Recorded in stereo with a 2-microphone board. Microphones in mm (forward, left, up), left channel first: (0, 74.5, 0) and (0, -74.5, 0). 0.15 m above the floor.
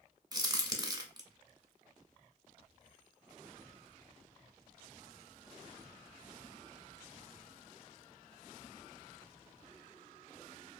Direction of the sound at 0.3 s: 25° right (ahead or behind).